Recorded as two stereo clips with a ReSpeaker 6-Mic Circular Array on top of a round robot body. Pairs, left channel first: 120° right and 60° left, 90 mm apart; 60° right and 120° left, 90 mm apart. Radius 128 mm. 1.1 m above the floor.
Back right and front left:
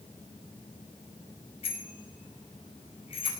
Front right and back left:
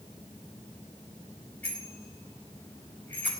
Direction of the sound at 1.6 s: 135° right.